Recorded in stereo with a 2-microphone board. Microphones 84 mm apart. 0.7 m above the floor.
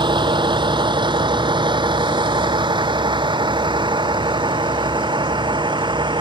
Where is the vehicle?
65° right (ahead or behind); by 6.2 s 70° right (ahead or behind).